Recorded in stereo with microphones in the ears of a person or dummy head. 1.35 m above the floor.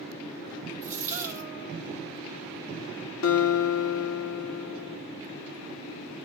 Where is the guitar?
80° left, 2 m.